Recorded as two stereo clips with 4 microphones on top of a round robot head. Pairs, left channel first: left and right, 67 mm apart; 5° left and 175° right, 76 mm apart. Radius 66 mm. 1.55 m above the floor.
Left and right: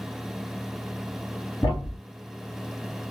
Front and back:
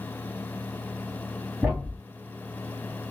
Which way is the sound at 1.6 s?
120° left.